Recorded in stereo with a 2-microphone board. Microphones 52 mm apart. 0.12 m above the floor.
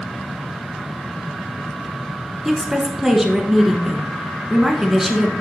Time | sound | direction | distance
2.5 | a woman speaking | 5° right (ahead or behind) | 1.1 m